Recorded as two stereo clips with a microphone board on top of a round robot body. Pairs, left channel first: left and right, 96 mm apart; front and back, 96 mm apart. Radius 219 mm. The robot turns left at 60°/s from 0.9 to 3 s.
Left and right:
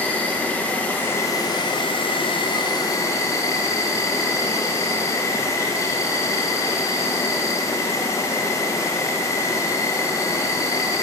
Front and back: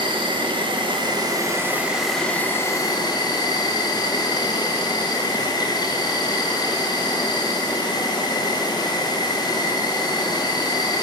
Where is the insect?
160° left, 0.9 m; by 11.0 s 35° left, 0.9 m.